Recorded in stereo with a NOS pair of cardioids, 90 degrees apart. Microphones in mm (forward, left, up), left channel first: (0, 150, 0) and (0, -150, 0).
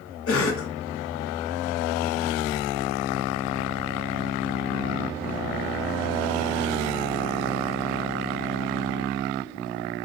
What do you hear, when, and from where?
0.3 s a cough: 50° left, 1.0 m